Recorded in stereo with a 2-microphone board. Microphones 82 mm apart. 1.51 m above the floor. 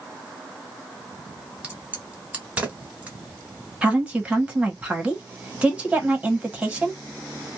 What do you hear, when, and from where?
1.6 s a crack: 15° right (ahead or behind), 1.2 m
3.8 s a woman speaking: 15° right (ahead or behind), 1.2 m